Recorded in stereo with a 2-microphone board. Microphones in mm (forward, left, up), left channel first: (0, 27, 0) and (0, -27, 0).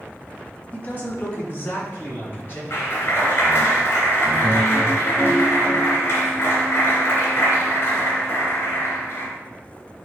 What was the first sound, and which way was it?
A man speaking, 25° left (ahead or behind).